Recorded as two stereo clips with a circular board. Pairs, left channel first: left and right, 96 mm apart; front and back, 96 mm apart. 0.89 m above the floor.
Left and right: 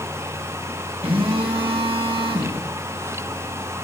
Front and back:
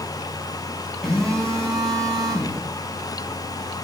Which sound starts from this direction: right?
A phone buzzing, at 1.0 s.